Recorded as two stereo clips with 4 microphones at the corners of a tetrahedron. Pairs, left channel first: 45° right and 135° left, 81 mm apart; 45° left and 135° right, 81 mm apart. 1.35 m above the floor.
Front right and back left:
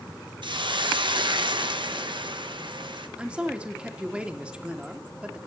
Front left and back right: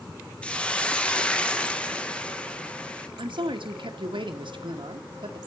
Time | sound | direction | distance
0.4 | a hiss | 120° left | 1.3 m
3.2 | a man speaking | 145° right | 2.0 m